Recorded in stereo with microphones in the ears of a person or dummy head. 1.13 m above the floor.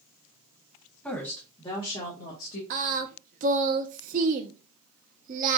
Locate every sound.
1.0 s a woman speaking: 5° left (ahead or behind), 1.3 m; by 2.6 s 50° left (ahead or behind), 1.3 m
2.7 s singing: 45° right (ahead or behind), 0.8 m